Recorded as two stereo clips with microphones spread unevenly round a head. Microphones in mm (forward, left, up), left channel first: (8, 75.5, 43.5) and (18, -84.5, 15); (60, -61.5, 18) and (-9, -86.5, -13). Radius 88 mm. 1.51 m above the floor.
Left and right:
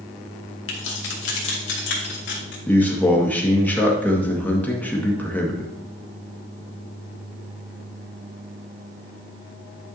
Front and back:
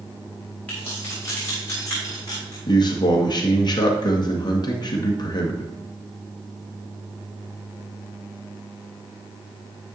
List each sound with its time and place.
0.7 s keys jangling: 95° left, 2 m; by 2.6 s 80° left, 3 m
2.7 s a man speaking: 15° left, 1.9 m